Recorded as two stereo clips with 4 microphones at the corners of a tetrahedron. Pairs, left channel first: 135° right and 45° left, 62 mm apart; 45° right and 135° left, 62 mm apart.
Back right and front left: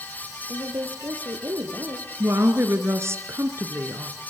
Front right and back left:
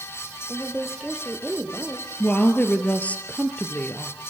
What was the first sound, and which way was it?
A woman speaking, 40° left.